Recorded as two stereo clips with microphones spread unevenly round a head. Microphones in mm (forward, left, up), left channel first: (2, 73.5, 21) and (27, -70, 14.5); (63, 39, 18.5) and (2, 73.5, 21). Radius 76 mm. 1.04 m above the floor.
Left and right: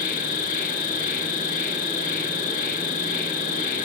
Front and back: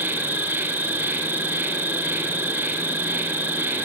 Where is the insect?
100° left, 1.0 m.